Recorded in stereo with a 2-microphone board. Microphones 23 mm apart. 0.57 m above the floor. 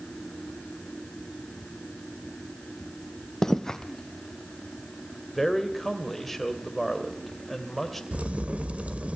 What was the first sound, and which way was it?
Footsteps, 20° left (ahead or behind).